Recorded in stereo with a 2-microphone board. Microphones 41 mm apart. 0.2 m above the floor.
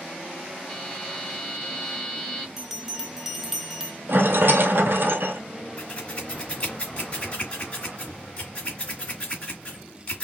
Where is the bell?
10° right (ahead or behind), 0.7 m.